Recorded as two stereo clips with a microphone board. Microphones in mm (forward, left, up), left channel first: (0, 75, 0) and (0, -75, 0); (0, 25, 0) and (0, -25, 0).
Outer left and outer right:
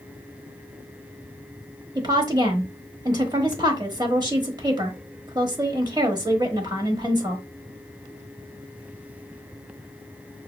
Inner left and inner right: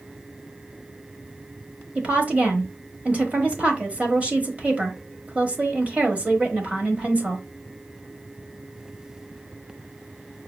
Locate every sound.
1.9 s a woman speaking: 30° right (ahead or behind), 1.1 m